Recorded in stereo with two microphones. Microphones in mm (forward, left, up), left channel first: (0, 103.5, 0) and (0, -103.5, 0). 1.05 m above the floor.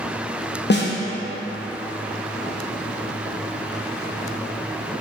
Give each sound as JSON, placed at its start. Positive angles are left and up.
{"t": 0.7, "sound": "a snare drum", "side_deg": 55, "distance_m": 0.6}